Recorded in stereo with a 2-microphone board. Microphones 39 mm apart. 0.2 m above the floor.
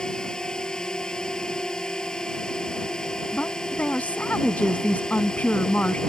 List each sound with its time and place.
0.0 s a drone: 20° left (ahead or behind)
3.3 s a woman speaking: 45° left (ahead or behind)